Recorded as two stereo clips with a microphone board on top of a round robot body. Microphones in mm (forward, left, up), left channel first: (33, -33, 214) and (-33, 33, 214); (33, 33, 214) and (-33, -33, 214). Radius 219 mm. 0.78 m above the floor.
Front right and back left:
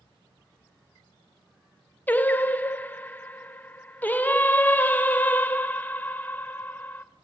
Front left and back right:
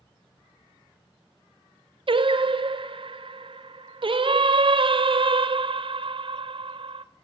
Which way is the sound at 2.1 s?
115° right.